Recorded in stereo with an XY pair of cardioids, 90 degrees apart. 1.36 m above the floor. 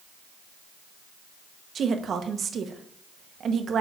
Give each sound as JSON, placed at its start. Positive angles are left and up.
{"t": 1.8, "sound": "a woman speaking", "azimuth_deg": -60, "distance_m": 1.0}